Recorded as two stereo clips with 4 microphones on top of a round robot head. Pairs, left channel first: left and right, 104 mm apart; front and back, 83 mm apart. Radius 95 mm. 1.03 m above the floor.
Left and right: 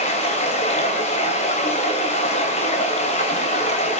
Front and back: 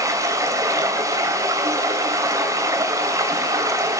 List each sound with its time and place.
0.0 s running water: 130° left, 3 m